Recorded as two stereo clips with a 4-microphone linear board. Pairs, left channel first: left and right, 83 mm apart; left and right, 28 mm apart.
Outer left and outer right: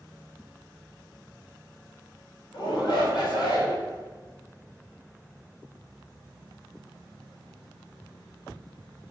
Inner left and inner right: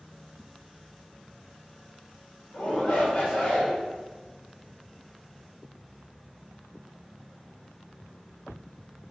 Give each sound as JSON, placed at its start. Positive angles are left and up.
{"t": 2.5, "sound": "a shout", "side_deg": 60, "distance_m": 2.5}